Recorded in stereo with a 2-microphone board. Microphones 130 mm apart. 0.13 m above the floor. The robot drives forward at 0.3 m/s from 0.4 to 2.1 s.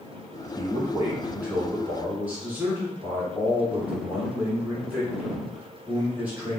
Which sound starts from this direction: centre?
A man speaking, at 0.6 s.